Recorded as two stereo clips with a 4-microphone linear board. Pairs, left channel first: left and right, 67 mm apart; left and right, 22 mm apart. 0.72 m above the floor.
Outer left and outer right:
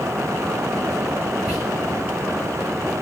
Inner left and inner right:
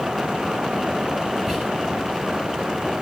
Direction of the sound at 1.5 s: 15° right (ahead or behind).